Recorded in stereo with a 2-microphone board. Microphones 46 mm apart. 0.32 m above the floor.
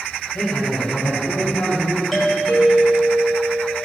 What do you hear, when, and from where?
0.3 s a man speaking: 50° left (ahead or behind), 2.5 m; by 2.0 s 40° left (ahead or behind), 3 m
2.1 s a doorbell: centre (ahead or behind), 1.5 m